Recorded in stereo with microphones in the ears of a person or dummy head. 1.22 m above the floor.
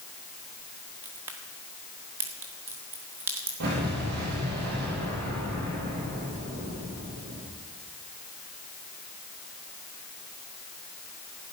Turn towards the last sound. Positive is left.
turn(degrees=-65)  # may be behind; listen again after turning